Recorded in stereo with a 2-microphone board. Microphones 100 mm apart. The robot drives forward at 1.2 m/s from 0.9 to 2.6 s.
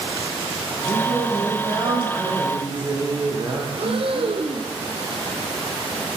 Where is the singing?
50° right (ahead or behind), 7.5 m; by 3.6 s 40° right (ahead or behind), 9 m.